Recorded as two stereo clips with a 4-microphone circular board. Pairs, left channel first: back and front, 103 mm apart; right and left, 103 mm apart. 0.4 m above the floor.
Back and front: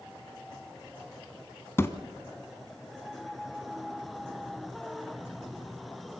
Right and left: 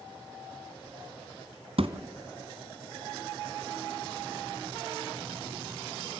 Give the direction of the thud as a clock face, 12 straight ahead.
8 o'clock.